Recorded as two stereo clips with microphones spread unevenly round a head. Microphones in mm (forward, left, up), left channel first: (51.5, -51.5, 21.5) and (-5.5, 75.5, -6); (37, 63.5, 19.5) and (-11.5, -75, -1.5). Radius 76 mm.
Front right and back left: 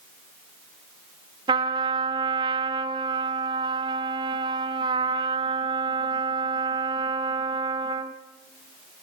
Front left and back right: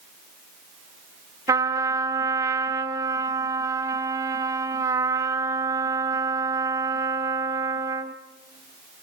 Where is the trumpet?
Straight behind, 1.0 m.